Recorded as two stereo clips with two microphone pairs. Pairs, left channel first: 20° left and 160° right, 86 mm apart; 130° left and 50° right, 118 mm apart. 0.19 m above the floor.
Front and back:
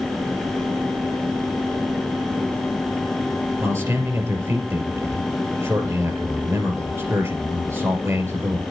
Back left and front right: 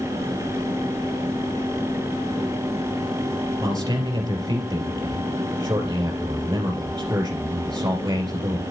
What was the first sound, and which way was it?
A man speaking, 110° right.